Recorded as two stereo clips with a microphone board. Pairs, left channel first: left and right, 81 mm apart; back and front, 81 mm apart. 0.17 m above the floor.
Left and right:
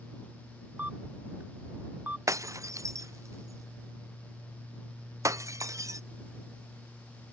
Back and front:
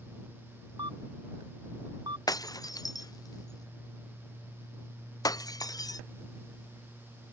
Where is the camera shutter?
20° right.